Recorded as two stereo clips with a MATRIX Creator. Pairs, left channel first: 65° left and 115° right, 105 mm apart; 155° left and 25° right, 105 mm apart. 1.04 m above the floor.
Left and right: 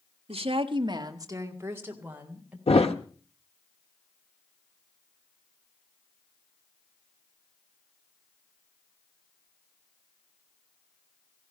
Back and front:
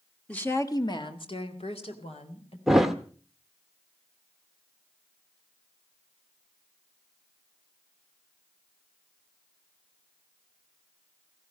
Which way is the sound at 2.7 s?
65° left.